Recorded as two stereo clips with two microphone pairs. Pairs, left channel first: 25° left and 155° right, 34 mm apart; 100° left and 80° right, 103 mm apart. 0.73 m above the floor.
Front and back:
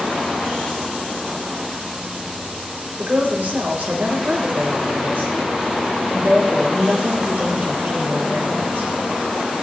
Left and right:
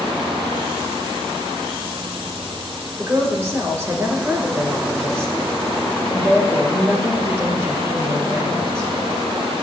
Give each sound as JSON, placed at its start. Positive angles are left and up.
{"t": 3.0, "sound": "a woman speaking", "azimuth_deg": -140, "distance_m": 2.5}